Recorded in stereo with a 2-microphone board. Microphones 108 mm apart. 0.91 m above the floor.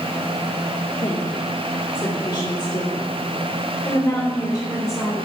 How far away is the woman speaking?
About 2 m.